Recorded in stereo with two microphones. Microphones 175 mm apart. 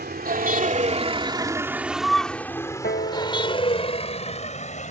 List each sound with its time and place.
0.0 s a vehicle: 60° right (ahead or behind); by 4.9 s 40° left (ahead or behind)
2.8 s a piano: 55° left (ahead or behind)